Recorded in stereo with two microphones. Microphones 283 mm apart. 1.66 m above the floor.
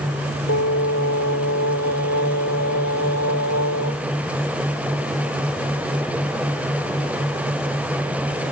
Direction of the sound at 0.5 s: 70° left (ahead or behind).